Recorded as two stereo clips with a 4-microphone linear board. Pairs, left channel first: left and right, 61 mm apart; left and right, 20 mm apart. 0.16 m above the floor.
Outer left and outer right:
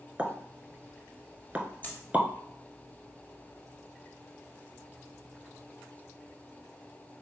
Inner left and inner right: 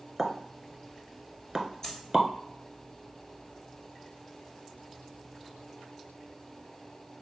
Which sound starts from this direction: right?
A pop, at 0.2 s.